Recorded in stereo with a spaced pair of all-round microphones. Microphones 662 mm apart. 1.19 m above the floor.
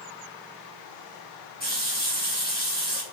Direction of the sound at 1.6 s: 15° left (ahead or behind).